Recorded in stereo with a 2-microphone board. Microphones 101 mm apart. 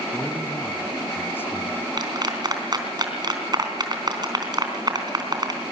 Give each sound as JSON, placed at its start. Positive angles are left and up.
{"t": 0.1, "sound": "a man speaking", "side_deg": 20, "distance_m": 3.5}
{"t": 2.0, "sound": "a clap", "side_deg": -45, "distance_m": 3.0}